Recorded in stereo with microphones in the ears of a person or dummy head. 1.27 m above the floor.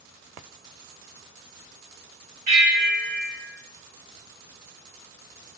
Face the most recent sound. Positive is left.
turn(degrees=-30)  # may be behind; listen again after turning